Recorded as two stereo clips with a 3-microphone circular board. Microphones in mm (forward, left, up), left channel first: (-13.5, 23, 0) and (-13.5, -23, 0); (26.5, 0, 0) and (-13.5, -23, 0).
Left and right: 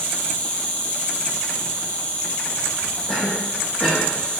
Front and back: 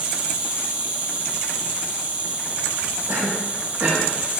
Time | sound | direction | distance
0.0 | an insect | 150° left | 2.5 m
3.1 | a cough | 165° left | 5 m